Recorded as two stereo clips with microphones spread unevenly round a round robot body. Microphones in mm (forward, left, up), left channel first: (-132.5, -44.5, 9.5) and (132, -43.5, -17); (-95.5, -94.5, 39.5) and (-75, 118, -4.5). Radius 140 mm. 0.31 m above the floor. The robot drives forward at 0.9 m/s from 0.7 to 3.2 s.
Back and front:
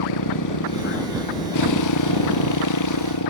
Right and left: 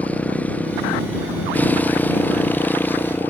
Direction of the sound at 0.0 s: Straight behind.